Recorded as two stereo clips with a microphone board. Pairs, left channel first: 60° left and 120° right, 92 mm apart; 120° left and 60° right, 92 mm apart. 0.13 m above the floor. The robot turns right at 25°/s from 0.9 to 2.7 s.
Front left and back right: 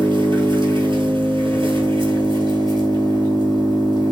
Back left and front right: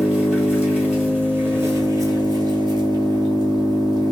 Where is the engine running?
135° right, 1.3 m; by 4.1 s 90° right, 1.3 m.